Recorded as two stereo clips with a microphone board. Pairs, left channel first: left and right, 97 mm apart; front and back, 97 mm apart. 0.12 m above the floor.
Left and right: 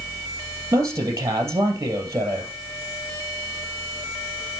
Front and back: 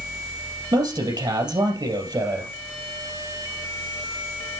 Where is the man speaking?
150° right, 3 m.